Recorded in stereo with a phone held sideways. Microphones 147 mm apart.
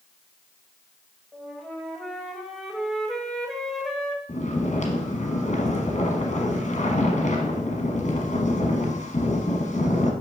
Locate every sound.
1.3 s a flute: centre (ahead or behind), 0.9 m
4.3 s snoring: 50° left (ahead or behind), 1.1 m